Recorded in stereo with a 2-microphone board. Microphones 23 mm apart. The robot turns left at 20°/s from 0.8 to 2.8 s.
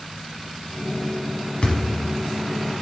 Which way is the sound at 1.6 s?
50° left (ahead or behind).